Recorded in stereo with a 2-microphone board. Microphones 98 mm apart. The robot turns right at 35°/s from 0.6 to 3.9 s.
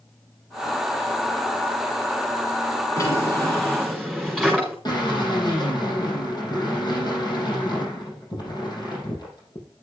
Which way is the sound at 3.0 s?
140° left.